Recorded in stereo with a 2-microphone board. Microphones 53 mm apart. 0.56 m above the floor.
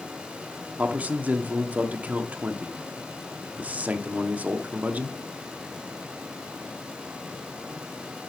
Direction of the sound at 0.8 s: 30° right (ahead or behind).